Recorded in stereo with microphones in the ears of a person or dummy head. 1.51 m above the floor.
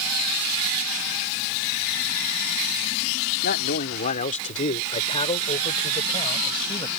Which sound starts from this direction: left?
A man speaking, at 3.4 s.